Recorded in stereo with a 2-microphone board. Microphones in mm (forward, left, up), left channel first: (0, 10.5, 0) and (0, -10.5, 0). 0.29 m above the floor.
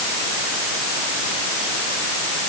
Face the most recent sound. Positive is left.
No sound to turn to.